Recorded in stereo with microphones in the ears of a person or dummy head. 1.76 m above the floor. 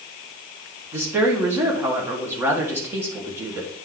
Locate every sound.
0.9 s a woman speaking: 10° right (ahead or behind), 1.4 m